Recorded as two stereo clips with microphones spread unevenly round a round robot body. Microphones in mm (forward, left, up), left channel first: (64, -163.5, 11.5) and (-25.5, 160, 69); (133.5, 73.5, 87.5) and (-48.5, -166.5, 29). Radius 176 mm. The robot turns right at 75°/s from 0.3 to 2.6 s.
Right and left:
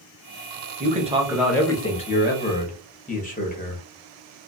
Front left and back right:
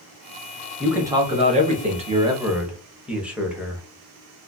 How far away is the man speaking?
About 0.8 m.